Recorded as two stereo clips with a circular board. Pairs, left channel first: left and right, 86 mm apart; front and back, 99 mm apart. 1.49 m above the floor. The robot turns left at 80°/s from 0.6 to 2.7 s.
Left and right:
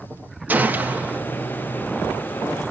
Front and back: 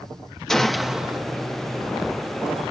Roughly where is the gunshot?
Right.